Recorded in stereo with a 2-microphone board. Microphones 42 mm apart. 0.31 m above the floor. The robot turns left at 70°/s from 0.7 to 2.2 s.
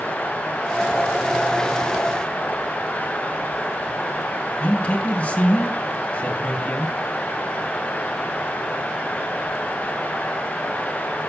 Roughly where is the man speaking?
Left.